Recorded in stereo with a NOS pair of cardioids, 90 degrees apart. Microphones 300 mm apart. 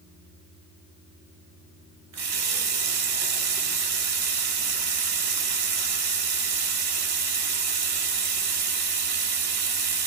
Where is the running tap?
60° right, 1.2 m.